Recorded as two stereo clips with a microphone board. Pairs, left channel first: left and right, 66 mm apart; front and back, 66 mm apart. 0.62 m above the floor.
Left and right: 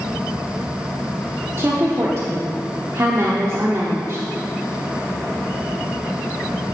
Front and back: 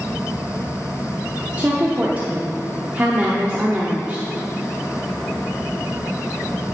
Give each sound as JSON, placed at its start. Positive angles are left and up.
{"t": 1.6, "sound": "a woman speaking", "azimuth_deg": -120, "distance_m": 0.9}